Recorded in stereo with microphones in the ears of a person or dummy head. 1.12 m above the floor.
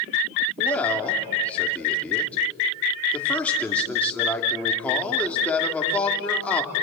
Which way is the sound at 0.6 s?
15° left (ahead or behind).